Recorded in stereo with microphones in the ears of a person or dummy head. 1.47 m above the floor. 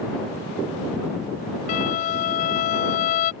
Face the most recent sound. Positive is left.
turn(degrees=40)  # may be behind; listen again after turning